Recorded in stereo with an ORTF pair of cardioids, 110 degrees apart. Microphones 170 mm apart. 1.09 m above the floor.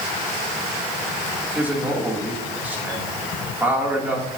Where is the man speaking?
10° right, 2.5 m.